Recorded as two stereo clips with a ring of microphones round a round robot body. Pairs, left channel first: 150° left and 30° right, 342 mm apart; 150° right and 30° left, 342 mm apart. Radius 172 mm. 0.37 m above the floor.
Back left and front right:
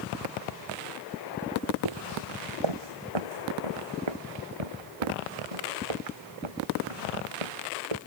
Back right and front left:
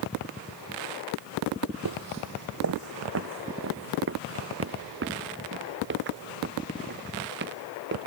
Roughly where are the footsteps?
Ahead.